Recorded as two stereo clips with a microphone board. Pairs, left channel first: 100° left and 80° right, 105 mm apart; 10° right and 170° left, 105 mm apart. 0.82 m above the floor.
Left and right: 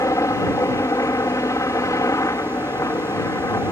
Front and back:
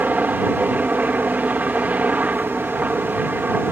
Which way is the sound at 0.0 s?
110° left.